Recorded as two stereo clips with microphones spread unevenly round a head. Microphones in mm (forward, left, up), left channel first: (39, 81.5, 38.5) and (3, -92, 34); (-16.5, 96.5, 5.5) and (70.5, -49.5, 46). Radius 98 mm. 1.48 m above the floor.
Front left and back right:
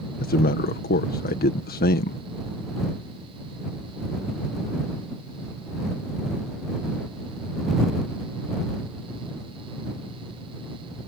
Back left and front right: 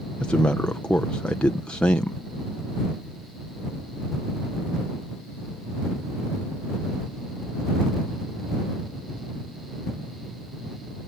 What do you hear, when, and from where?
0.2 s a man speaking: 40° left